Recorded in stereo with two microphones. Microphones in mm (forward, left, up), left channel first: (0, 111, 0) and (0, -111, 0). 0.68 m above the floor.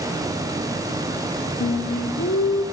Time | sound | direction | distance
1.6 | singing | 65° left (ahead or behind) | 1.1 m